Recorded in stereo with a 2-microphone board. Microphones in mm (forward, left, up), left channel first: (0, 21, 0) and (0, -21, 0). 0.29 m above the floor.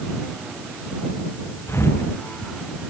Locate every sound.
1.7 s a thud: 80° left